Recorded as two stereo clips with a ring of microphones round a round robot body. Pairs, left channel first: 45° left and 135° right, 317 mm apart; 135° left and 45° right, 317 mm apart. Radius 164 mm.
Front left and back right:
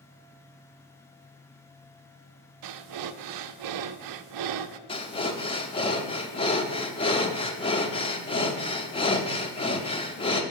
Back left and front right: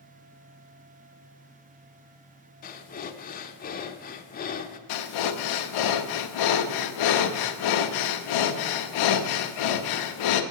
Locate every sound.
2.6 s breathing: 160° right, 0.5 m
4.9 s breathing: 120° left, 0.7 m